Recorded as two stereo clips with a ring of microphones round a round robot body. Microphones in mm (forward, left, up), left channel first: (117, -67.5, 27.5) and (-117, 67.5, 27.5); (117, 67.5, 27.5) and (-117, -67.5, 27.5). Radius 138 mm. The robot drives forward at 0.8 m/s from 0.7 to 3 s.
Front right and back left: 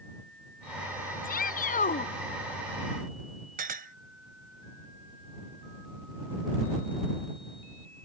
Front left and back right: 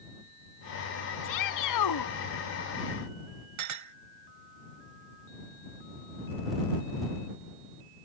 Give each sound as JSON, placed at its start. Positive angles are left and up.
{"t": 1.2, "sound": "a shout", "azimuth_deg": 30}
{"t": 3.6, "sound": "a clink", "azimuth_deg": -150}